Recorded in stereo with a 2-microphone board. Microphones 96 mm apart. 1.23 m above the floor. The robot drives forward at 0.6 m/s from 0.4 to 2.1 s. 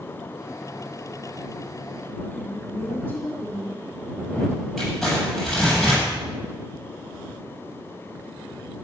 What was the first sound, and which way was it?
A woman speaking, 15° left (ahead or behind).